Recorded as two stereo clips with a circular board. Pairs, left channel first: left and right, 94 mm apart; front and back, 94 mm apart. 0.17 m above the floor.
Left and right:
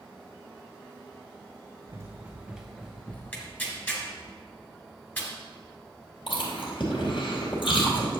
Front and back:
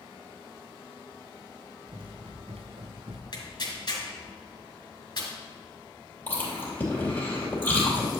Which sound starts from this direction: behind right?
Running footsteps, at 1.9 s.